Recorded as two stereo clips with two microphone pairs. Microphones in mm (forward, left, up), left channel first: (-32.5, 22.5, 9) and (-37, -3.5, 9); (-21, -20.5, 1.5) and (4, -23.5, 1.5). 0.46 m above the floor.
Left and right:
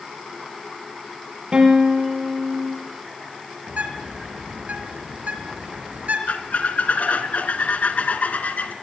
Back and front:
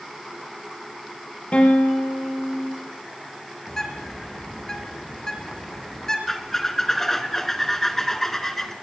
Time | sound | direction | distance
1.5 | a guitar | 150° right | 7 m
3.7 | a bird | 115° right | 4.5 m
6.3 | a squeak | 100° left | 2 m